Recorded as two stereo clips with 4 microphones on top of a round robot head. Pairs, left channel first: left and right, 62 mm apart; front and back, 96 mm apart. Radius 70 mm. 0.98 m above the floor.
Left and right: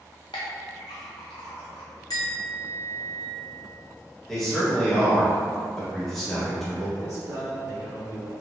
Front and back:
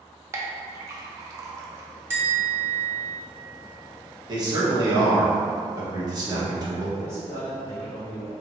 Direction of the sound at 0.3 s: 125° left.